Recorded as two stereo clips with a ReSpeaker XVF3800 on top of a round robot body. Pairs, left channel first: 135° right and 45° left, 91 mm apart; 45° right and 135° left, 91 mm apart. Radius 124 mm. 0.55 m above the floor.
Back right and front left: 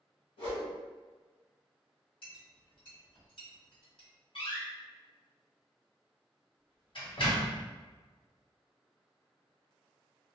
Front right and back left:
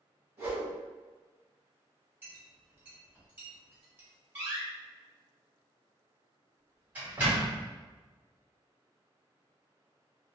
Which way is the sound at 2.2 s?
155° right.